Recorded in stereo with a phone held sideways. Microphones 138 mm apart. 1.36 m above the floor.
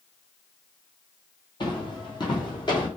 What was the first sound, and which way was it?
Footsteps, 35° left (ahead or behind).